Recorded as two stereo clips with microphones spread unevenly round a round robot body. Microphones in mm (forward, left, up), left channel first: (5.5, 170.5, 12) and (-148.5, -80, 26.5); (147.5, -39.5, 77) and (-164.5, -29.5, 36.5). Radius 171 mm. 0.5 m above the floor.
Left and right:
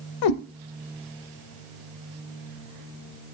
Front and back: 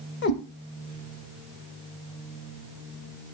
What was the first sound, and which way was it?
A cat meowing, 60° left.